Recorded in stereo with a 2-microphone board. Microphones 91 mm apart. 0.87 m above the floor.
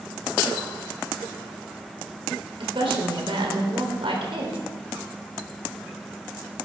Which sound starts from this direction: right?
A woman speaking, at 2.6 s.